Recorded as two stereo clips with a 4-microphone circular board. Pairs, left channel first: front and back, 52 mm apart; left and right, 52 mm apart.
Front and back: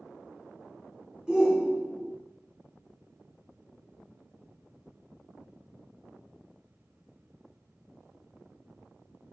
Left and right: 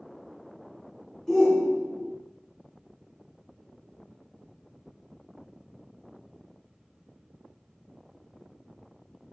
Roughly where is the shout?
Behind left.